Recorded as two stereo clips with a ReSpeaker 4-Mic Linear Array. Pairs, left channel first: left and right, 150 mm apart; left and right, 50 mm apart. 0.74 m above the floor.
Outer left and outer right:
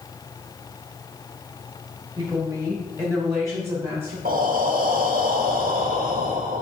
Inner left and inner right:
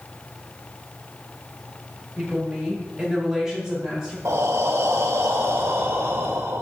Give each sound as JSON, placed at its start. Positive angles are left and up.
{"t": 2.2, "sound": "a woman speaking", "side_deg": -30, "distance_m": 2.0}
{"t": 4.2, "sound": "breathing", "side_deg": -70, "distance_m": 0.8}